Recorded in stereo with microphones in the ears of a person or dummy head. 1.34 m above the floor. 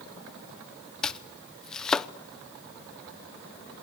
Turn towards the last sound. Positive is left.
turn(degrees=10)  # may be behind; listen again after turning